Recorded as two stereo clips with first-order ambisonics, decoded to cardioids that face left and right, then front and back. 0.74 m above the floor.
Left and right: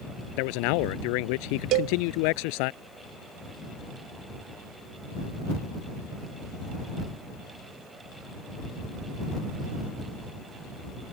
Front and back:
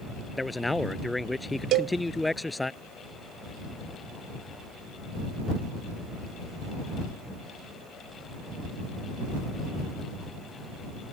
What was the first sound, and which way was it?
A man speaking, 85° left.